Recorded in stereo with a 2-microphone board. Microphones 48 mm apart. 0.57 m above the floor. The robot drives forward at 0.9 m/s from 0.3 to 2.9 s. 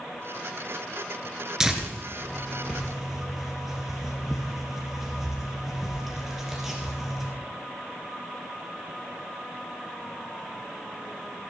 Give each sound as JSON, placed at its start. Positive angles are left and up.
{"t": 1.6, "sound": "tearing paper", "side_deg": -10, "distance_m": 1.9}